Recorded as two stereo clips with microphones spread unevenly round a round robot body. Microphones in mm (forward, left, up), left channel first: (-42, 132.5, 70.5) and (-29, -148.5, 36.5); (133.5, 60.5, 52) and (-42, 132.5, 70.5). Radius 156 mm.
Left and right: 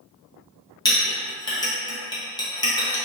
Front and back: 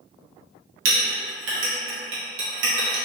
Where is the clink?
170° left, 0.8 m.